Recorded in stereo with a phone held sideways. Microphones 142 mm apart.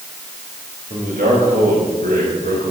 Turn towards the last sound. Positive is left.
turn(degrees=-80)